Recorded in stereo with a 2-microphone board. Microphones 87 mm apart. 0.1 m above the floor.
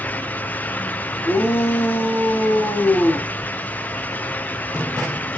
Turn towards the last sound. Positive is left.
turn(degrees=25)  # may be behind; listen again after turning